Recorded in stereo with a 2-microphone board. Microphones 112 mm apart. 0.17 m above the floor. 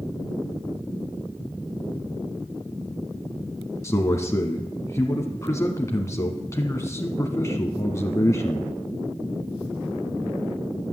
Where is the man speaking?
25° left (ahead or behind), 1.1 m.